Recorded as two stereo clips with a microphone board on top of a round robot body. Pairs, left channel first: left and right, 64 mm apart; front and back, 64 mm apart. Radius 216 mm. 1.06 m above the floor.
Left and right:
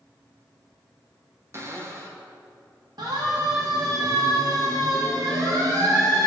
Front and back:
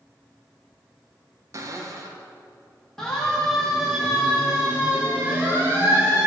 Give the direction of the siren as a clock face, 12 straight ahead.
3 o'clock.